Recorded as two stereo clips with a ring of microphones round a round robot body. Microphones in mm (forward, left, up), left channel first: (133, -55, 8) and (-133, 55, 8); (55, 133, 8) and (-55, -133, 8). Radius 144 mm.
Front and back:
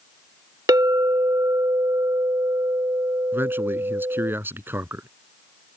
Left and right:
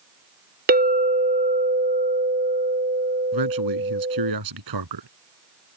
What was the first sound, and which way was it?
A clink, 135° right.